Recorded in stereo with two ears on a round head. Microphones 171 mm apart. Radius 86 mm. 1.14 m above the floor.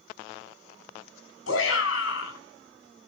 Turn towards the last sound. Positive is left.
turn(degrees=80)